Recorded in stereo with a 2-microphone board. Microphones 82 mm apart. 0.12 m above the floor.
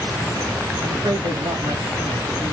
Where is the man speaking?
60° right (ahead or behind), 7 m.